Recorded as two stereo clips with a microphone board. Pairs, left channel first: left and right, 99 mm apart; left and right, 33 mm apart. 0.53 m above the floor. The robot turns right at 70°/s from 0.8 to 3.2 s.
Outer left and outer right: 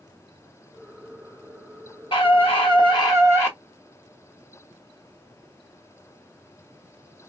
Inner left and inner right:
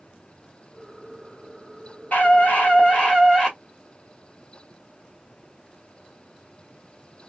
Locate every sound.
2.1 s a scream: 65° left, 1.8 m; by 3.6 s 140° left, 1.8 m